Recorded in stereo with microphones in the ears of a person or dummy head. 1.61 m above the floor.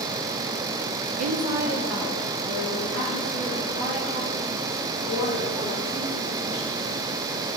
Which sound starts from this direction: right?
A woman speaking, at 1.2 s.